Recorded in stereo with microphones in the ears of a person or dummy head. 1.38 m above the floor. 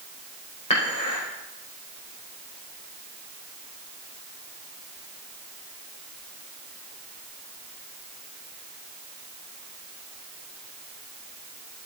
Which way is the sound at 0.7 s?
35° left (ahead or behind).